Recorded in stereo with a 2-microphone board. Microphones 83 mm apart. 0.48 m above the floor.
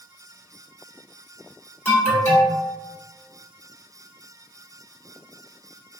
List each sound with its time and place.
1.9 s an alarm: 15° left (ahead or behind), 1.5 m